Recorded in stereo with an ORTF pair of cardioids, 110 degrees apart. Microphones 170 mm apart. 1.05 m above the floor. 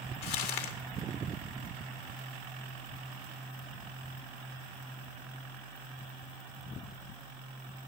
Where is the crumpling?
70° left, 1.9 m.